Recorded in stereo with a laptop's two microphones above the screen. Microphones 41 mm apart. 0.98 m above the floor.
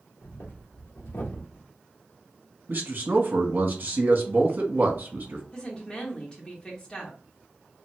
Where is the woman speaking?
20° left (ahead or behind), 1.8 m.